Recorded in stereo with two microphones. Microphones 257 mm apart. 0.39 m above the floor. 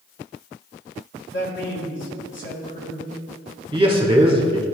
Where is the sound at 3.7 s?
20° right (ahead or behind), 1.3 m.